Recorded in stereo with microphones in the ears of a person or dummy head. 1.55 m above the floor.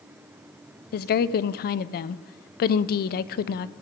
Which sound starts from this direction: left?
A woman speaking, at 0.9 s.